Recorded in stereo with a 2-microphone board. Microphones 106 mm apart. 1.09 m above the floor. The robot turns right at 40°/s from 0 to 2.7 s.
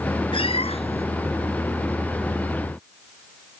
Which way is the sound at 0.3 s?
55° left (ahead or behind).